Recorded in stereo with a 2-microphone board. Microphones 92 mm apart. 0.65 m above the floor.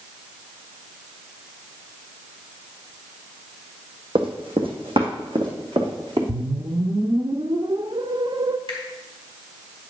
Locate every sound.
4.2 s running footsteps: 65° right (ahead or behind), 1.5 m; by 6.2 s 60° right (ahead or behind), 3.5 m
6.3 s a whoosh: 50° right (ahead or behind), 0.5 m
8.7 s a finger snap: 75° right (ahead or behind), 4 m